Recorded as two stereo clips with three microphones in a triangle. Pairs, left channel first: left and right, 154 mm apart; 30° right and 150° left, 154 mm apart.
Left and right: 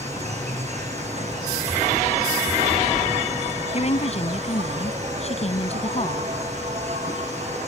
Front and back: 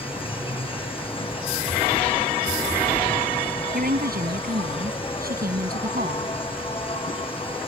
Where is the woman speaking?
135° left.